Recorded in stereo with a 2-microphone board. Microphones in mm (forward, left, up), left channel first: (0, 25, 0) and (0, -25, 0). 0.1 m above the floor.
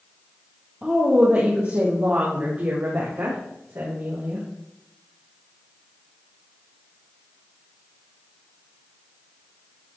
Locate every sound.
0.8 s a woman speaking: 25° right (ahead or behind), 3 m; by 4.5 s 65° right (ahead or behind), 6.5 m